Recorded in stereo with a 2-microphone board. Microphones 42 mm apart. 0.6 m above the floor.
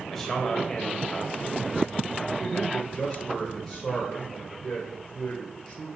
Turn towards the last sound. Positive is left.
turn(degrees=15)  # may be behind; listen again after turning